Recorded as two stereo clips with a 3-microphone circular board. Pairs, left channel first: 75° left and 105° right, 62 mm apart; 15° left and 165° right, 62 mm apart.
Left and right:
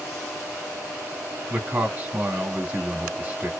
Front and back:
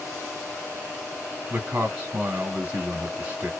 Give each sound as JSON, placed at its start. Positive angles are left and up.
{"t": 1.5, "sound": "a man speaking", "azimuth_deg": -115, "distance_m": 1.3}